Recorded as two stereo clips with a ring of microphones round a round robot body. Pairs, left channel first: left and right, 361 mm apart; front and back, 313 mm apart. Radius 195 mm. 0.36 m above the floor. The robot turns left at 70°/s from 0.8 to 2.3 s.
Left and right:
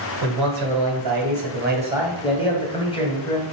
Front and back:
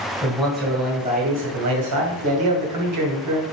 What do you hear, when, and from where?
0.2 s a man speaking: 90° right, 2.5 m; by 3.4 s 165° left, 2.5 m